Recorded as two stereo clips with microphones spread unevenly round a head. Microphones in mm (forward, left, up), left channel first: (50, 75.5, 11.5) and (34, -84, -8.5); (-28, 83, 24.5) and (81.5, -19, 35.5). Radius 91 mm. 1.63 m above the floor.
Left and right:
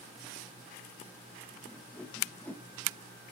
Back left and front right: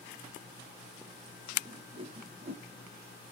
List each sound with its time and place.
1.7 s a whoosh: 5° left, 1.8 m